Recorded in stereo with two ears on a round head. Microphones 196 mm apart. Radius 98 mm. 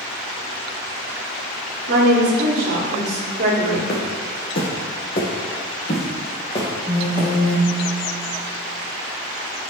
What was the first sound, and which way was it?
A woman speaking, 55° right (ahead or behind).